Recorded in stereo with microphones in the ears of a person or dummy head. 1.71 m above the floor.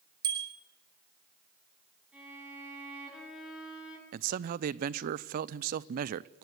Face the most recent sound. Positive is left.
turn(degrees=-55)  # may be behind; listen again after turning